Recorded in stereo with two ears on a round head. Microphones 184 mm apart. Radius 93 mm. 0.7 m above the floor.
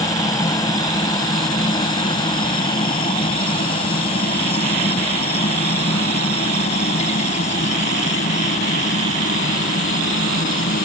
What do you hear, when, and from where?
0.0 s a helicopter: 15° left (ahead or behind); by 10.9 s 40° left (ahead or behind)